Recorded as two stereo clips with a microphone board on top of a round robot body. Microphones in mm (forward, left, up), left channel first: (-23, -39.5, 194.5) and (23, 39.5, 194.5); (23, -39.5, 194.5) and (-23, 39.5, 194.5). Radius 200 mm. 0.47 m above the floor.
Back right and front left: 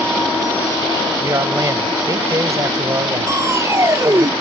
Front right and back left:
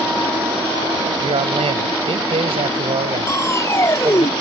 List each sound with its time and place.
1.2 s a man speaking: 115° left
3.3 s crushing: straight ahead